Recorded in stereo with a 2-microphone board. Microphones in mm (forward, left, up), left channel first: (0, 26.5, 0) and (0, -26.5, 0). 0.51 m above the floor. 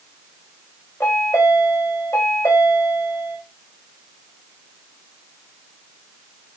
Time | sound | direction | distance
1.0 | a chime | 70° left (ahead or behind) | 6 m